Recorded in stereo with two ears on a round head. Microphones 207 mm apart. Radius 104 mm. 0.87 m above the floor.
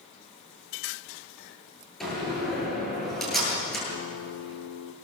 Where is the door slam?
Centre (ahead or behind), 9.5 m.